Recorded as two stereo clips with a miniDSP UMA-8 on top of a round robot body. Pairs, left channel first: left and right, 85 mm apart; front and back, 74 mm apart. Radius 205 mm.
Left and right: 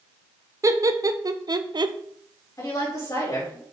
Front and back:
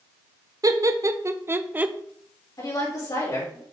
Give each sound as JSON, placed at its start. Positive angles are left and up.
{"t": 0.6, "sound": "laughter", "azimuth_deg": -145, "distance_m": 1.3}
{"t": 2.6, "sound": "a woman speaking", "azimuth_deg": 40, "distance_m": 4.5}